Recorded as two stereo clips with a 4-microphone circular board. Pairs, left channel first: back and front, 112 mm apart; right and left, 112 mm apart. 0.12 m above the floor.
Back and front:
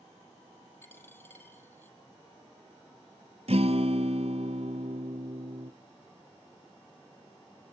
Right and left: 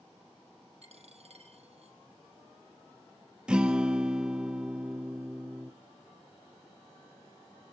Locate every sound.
0.8 s a dropped coin: 110° left, 1.9 m
3.5 s a guitar: 10° left, 0.8 m